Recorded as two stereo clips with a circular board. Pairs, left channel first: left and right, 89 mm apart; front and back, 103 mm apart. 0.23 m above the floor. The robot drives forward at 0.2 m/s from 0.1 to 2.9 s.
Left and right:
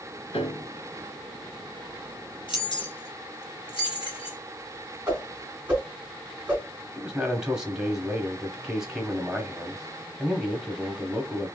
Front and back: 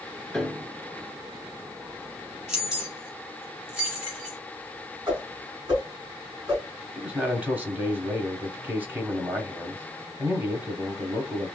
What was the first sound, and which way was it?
A piano, 85° left.